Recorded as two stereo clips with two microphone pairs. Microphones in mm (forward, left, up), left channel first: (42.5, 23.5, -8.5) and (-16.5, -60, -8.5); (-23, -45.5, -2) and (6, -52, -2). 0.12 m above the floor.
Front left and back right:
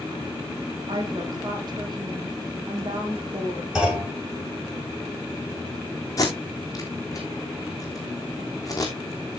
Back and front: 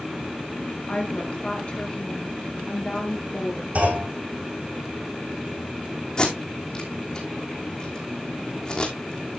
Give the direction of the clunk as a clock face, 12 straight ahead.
1 o'clock.